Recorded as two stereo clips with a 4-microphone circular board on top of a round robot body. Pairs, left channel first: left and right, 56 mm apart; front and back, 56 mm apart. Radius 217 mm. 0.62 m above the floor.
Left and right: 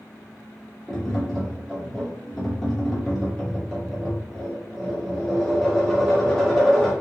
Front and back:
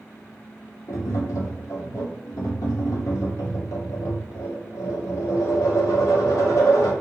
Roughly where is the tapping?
Ahead.